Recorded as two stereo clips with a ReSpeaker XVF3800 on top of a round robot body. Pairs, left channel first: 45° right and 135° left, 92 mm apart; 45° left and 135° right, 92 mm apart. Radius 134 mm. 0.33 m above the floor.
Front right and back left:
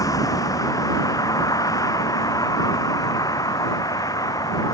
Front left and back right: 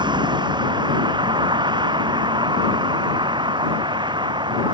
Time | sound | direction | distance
0.0 | a vehicle | 100° right | ?